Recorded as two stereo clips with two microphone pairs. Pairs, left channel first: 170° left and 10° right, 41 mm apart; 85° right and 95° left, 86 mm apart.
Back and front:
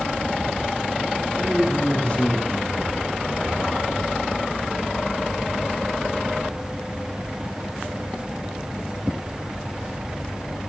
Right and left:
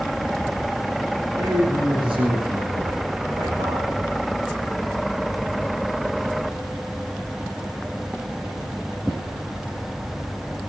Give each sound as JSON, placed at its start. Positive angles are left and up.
{"t": 1.4, "sound": "a man speaking", "azimuth_deg": 110, "distance_m": 9.0}